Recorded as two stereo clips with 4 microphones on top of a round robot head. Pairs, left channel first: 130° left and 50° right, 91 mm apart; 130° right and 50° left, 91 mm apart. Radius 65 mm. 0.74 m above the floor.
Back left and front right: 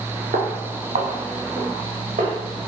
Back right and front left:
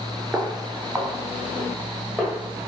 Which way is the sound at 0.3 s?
30° right.